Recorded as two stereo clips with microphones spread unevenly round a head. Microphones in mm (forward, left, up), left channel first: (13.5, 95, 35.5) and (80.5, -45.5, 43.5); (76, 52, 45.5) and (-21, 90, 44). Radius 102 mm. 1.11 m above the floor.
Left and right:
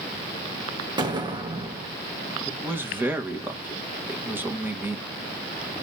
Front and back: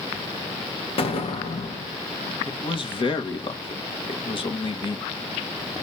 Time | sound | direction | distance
1.0 | an explosion | straight ahead | 2 m
2.5 | a man speaking | 15° left | 2.5 m